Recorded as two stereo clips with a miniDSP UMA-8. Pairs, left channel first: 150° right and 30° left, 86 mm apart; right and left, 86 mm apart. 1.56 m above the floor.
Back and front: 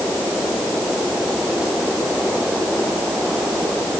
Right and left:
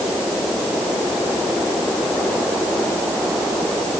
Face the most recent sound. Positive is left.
No sound to turn to.